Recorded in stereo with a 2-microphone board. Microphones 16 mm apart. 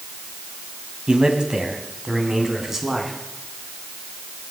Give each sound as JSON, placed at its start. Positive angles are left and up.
{"t": 1.1, "sound": "a man speaking", "side_deg": -65, "distance_m": 3.0}